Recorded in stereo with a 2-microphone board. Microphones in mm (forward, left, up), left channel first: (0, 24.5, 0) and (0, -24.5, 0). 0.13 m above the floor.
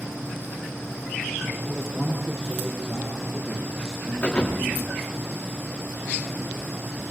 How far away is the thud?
About 9 m.